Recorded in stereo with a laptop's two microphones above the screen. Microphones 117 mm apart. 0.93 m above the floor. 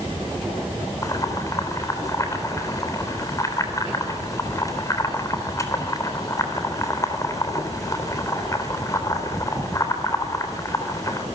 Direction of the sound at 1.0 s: 30° left (ahead or behind).